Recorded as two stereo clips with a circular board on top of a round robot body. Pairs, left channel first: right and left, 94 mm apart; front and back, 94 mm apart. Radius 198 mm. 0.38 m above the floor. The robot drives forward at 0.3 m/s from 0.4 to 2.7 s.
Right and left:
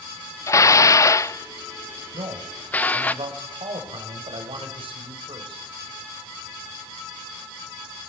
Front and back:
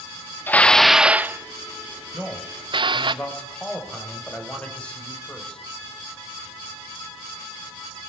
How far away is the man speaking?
About 3.5 m.